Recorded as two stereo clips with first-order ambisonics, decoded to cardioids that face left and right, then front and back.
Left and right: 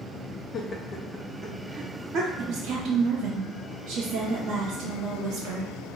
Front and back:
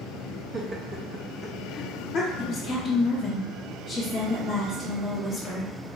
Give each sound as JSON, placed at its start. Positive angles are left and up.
{"t": 0.5, "sound": "laughter", "azimuth_deg": 130, "distance_m": 0.6}
{"t": 2.4, "sound": "a woman speaking", "azimuth_deg": -85, "distance_m": 0.9}